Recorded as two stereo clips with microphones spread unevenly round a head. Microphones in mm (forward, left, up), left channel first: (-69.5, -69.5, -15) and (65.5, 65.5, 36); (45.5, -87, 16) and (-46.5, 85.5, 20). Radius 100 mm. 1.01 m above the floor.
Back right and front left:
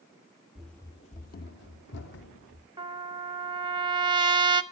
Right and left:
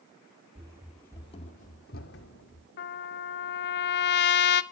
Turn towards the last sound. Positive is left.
turn(degrees=-30)